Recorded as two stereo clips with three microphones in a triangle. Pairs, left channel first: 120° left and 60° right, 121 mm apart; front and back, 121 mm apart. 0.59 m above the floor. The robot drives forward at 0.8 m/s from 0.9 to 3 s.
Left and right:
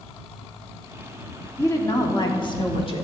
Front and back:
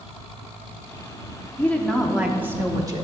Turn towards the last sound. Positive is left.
turn(degrees=135)